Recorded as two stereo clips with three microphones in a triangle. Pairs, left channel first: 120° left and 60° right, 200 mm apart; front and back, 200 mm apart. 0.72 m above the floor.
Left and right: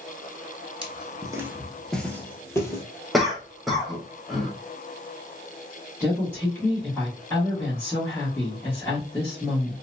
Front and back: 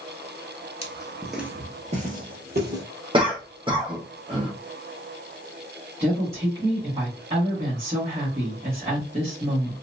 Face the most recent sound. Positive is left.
turn(degrees=-170)